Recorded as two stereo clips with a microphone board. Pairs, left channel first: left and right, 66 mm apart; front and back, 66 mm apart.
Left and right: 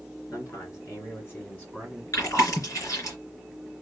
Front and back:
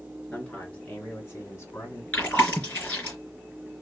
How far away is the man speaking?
About 2.5 m.